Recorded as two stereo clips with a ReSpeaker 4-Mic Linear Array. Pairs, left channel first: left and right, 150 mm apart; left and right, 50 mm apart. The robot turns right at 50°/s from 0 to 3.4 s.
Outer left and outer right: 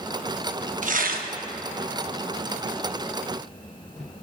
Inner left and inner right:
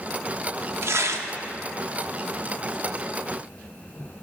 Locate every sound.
0.8 s tearing paper: 55° right (ahead or behind), 0.7 m; by 1.3 s 80° right, 0.7 m